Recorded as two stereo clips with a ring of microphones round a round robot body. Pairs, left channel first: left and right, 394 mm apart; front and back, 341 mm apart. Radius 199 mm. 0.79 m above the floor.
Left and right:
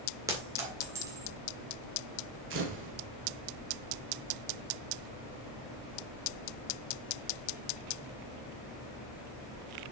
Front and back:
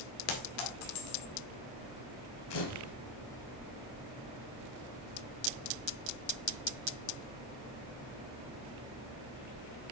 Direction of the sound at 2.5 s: 30° right.